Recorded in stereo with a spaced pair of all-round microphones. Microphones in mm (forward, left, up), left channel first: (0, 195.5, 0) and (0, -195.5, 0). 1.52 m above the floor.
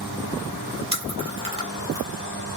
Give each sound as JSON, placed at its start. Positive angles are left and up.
{"t": 0.9, "sound": "chewing", "side_deg": -15, "distance_m": 2.0}